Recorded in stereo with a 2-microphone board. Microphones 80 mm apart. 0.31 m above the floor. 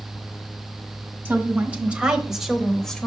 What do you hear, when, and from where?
1.2 s a woman speaking: 25° right (ahead or behind), 1.4 m; by 3.1 s 10° left (ahead or behind), 1.0 m